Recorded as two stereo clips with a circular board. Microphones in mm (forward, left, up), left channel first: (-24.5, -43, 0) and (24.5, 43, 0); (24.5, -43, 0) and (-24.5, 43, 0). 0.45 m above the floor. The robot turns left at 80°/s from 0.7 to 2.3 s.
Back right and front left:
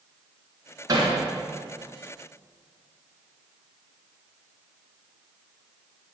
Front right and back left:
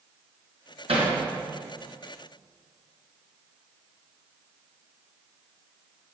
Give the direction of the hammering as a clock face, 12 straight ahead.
8 o'clock.